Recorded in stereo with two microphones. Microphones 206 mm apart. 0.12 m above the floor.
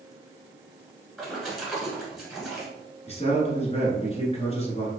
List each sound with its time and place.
1.2 s a splash: centre (ahead or behind), 1.3 m
3.1 s a man speaking: 30° left (ahead or behind), 1.3 m